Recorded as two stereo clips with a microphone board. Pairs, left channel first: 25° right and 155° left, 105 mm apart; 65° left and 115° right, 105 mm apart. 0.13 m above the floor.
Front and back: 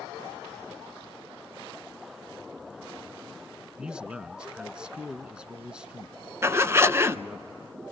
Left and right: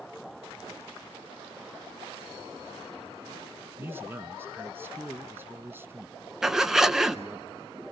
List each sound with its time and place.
3.8 s a man speaking: 135° right, 1.1 m
6.4 s a zipper: 165° left, 0.8 m